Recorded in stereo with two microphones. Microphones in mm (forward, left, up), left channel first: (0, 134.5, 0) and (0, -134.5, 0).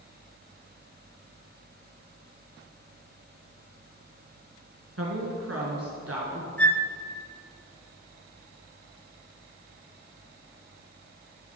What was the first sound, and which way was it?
A woman speaking, 60° right (ahead or behind).